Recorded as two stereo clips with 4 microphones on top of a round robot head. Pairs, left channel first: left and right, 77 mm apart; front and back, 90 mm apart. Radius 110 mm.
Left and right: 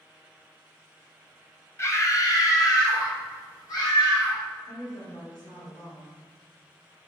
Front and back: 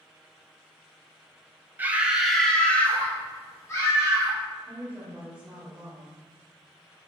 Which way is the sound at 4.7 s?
95° left.